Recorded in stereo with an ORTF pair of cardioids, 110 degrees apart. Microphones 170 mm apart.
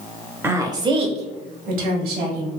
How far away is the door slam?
I don't hear a door slam.